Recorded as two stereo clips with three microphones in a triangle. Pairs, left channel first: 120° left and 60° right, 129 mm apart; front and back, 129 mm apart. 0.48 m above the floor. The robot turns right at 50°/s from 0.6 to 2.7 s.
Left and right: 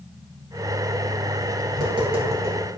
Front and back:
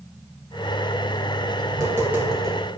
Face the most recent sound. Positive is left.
turn(degrees=-70)